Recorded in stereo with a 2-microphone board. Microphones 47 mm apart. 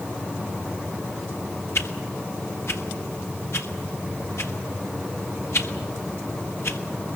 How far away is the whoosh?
About 1.6 m.